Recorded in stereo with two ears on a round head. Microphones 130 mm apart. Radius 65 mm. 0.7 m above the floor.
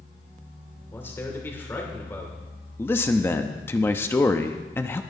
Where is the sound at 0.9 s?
15° left (ahead or behind), 3 m.